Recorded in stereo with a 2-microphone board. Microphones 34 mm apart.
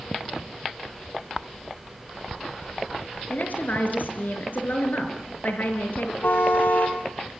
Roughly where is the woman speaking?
Left.